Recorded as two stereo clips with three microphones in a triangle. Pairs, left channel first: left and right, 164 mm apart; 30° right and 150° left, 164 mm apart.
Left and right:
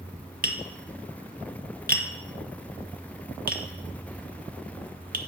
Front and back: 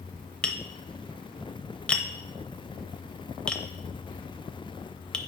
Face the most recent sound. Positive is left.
turn(degrees=-115)